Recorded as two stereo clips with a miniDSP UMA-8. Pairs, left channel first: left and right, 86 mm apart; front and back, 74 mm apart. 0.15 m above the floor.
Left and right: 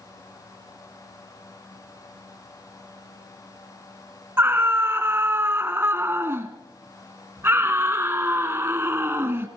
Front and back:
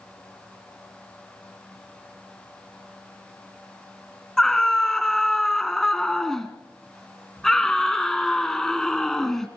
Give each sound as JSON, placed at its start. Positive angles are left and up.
{"t": 4.4, "sound": "a scream", "azimuth_deg": -75, "distance_m": 1.2}